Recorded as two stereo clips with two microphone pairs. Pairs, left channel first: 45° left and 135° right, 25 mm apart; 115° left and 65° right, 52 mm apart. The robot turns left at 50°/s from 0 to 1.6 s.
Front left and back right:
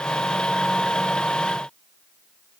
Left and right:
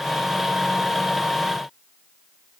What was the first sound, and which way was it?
Only background noise.